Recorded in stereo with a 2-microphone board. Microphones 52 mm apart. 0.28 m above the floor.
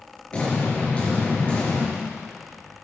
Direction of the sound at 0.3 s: 25° left (ahead or behind).